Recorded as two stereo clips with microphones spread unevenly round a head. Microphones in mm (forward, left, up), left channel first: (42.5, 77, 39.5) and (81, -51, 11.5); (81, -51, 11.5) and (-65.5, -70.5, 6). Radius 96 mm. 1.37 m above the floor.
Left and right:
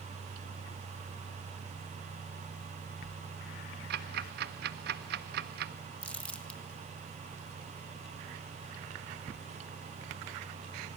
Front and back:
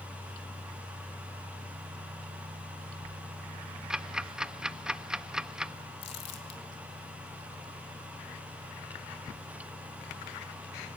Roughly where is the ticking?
Right.